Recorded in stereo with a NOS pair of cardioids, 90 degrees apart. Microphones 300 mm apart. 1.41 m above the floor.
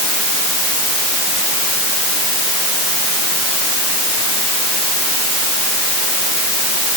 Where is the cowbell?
I don't hear a cowbell.